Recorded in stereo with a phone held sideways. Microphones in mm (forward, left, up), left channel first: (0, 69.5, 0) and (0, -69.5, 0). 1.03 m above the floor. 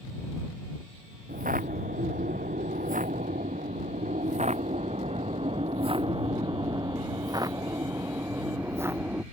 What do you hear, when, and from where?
1.3 s footsteps: 80° right; by 9.2 s 15° right (ahead or behind)